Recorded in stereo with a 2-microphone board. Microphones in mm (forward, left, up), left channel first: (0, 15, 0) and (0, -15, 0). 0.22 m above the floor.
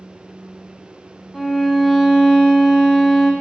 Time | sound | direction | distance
1.3 | a violin | 5° left (ahead or behind) | 0.5 m